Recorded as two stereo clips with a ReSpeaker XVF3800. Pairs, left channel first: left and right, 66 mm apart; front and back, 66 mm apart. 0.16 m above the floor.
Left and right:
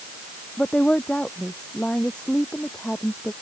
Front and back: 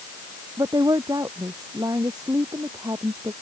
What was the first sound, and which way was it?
A woman speaking, 165° left.